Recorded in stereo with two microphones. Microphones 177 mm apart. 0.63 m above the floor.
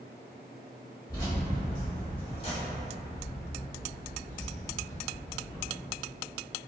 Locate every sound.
1.1 s keys jangling: 20° left (ahead or behind), 1.6 m; by 5.7 s 25° left (ahead or behind), 1.1 m